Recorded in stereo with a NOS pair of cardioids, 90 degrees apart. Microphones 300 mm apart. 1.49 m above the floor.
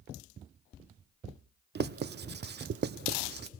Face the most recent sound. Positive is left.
turn(degrees=-35)